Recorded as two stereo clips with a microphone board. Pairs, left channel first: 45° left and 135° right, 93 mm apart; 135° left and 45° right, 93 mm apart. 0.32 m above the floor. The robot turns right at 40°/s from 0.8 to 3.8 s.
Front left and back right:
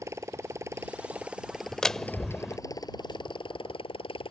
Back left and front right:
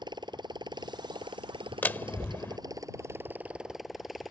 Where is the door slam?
115° left; by 2.6 s 145° left.